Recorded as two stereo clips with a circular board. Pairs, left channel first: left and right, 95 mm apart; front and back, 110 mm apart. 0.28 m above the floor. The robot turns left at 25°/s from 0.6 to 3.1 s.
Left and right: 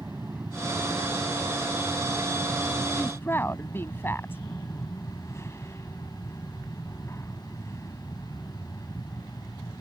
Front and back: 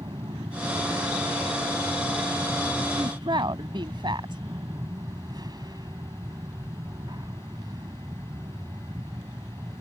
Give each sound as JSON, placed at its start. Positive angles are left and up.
{"t": 0.0, "sound": "an aircraft", "azimuth_deg": -155}
{"t": 3.0, "sound": "a woman speaking", "azimuth_deg": 155}